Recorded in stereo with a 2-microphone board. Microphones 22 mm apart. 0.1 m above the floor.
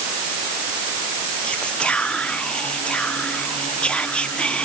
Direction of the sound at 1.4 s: 60° left (ahead or behind).